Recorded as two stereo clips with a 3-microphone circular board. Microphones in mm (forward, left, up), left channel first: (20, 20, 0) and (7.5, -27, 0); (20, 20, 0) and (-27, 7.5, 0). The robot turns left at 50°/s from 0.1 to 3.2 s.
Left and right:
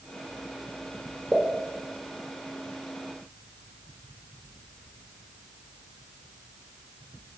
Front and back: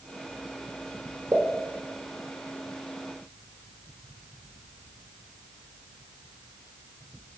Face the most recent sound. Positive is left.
turn(degrees=80)